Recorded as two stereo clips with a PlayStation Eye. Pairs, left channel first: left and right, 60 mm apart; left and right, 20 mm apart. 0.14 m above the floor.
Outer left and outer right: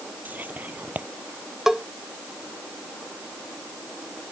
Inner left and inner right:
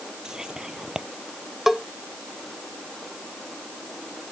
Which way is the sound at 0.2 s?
30° right (ahead or behind).